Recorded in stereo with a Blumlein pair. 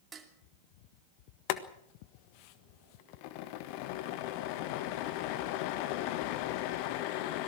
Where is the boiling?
45° left, 1.4 m.